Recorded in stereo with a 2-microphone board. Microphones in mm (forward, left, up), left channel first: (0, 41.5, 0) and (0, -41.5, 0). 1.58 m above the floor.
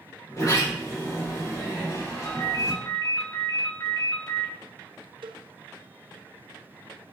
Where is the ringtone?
55° left (ahead or behind), 2.5 m.